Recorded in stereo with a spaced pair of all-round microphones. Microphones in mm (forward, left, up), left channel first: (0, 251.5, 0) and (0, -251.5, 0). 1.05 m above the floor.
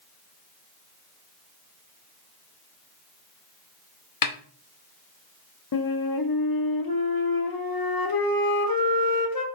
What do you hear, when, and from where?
4.2 s a snare drum: 45° left (ahead or behind), 0.5 m
5.7 s a flute: 50° left (ahead or behind), 0.6 m